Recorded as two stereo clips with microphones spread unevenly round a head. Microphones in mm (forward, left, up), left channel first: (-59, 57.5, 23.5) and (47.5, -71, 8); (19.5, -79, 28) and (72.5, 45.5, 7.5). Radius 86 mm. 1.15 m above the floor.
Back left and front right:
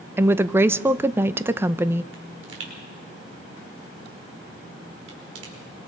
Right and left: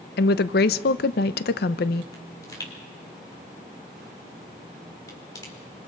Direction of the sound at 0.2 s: 125° right.